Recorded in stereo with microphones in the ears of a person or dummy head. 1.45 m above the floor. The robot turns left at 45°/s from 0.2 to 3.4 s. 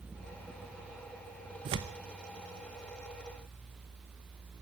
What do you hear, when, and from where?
1.6 s tearing paper: 30° right (ahead or behind), 0.8 m; by 2.0 s 15° right (ahead or behind), 0.8 m